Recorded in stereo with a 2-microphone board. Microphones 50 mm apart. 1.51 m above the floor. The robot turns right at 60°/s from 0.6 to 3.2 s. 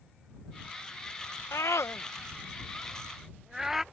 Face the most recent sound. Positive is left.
turn(degrees=-5)  # may be behind; listen again after turning